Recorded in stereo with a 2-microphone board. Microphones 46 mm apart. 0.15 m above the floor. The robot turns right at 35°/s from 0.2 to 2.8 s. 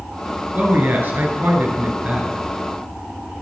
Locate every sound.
0.5 s a man speaking: 110° right, 2.5 m; by 2.4 s 45° right, 2.5 m